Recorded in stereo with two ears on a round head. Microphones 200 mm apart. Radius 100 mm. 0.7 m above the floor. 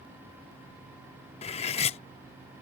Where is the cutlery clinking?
30° left (ahead or behind).